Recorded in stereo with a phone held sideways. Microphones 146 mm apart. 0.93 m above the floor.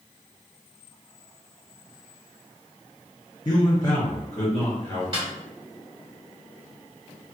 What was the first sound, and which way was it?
A man speaking, 30° left (ahead or behind).